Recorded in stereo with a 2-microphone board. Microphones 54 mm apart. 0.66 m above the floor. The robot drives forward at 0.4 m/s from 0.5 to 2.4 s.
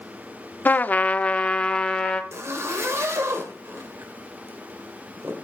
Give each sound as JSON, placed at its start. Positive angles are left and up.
{"t": 0.7, "sound": "a trumpet", "side_deg": 35, "distance_m": 0.5}
{"t": 2.3, "sound": "a zipper", "side_deg": -55, "distance_m": 2.5}